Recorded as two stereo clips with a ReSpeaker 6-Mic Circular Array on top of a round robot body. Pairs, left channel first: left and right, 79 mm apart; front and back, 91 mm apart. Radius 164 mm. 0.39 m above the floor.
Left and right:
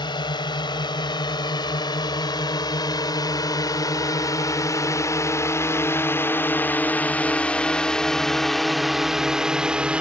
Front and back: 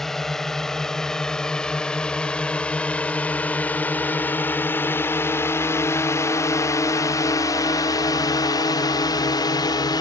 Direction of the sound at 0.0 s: 85° left.